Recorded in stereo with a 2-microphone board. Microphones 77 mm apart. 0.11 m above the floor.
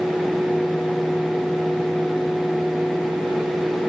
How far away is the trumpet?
I don't hear a trumpet.